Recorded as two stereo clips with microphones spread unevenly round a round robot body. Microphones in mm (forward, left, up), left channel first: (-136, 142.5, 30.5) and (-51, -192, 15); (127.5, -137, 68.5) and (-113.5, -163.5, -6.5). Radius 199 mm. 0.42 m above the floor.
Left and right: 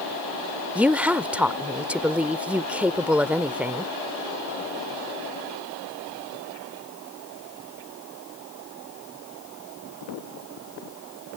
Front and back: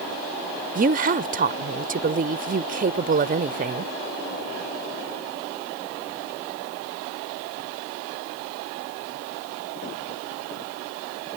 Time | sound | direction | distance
0.8 | a woman speaking | 160° right | ?